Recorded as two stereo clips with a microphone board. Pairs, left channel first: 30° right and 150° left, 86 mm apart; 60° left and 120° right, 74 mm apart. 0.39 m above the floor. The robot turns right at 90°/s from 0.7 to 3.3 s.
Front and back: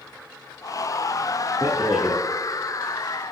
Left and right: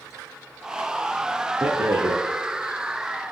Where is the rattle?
145° right, 3 m; by 2.2 s 95° right, 3 m.